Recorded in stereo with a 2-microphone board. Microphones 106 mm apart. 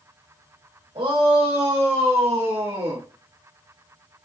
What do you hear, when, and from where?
0.9 s a shout: 60° right (ahead or behind), 2.5 m; by 3.0 s 50° right (ahead or behind), 2.5 m